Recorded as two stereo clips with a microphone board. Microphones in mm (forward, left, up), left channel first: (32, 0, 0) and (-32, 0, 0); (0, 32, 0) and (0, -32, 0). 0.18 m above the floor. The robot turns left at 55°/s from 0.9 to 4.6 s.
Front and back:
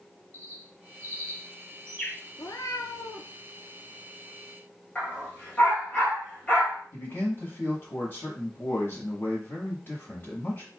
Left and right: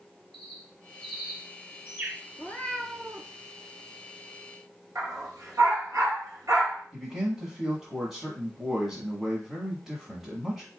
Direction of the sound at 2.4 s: 35° left.